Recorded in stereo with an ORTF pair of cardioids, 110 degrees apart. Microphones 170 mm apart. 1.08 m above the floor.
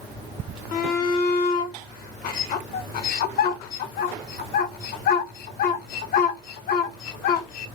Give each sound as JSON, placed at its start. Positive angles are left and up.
{"t": 0.7, "sound": "a shout", "azimuth_deg": 65, "distance_m": 0.8}